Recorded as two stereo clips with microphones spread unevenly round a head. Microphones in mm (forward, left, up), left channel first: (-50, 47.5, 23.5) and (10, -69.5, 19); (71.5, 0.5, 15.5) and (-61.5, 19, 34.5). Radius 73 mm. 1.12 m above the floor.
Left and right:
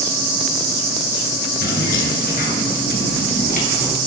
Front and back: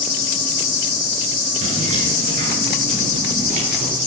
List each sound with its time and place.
1.6 s keys jangling: 130° left, 9.5 m; by 4.0 s 145° left, 11.5 m